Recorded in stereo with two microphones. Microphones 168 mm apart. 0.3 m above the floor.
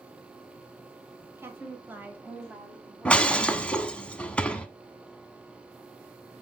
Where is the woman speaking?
15° right (ahead or behind), 1.0 m; by 3.8 s centre (ahead or behind), 1.9 m.